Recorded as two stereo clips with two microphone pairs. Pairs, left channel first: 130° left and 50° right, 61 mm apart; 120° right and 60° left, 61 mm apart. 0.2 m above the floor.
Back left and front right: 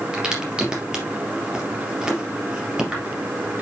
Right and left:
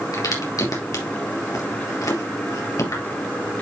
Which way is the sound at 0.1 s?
130° right.